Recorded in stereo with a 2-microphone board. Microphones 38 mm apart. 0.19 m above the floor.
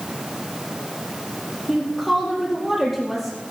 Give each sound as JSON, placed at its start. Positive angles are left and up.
{"t": 1.7, "sound": "a woman speaking", "side_deg": 10, "distance_m": 4.5}